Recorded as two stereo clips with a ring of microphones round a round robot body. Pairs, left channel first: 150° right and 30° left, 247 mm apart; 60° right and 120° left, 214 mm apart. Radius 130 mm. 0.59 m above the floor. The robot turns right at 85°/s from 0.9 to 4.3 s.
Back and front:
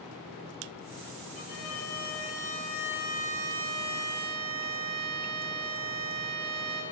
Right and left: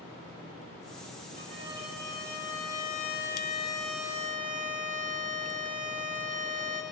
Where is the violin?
175° left, 5.5 m; by 6.8 s 65° left, 5.5 m.